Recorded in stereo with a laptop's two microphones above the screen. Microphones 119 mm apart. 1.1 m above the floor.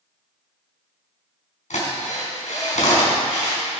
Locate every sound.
1.7 s a drill: 80° left, 4 m